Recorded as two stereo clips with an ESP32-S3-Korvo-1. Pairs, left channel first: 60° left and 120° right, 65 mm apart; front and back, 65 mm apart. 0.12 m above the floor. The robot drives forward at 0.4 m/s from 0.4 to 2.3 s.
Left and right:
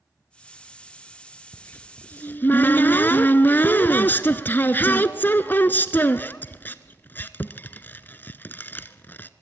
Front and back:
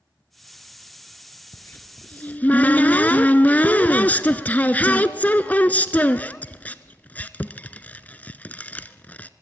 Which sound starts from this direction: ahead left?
A cupboard door, at 1.5 s.